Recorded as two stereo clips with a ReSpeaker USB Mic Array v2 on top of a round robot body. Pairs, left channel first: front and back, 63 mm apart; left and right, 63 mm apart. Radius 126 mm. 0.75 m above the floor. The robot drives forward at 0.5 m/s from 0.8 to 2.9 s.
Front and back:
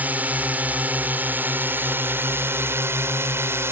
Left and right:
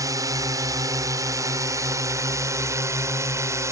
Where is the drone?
115° right; by 3.7 s 130° right.